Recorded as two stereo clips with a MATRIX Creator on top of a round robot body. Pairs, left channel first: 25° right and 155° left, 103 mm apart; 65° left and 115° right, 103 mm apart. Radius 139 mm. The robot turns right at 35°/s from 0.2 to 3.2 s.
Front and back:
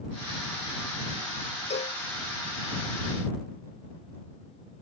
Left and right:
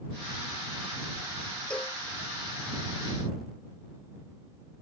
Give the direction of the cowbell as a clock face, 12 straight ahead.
12 o'clock.